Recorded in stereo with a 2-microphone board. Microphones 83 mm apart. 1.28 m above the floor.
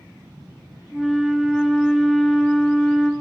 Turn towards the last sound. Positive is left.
turn(degrees=0)  # may be behind; listen again after turning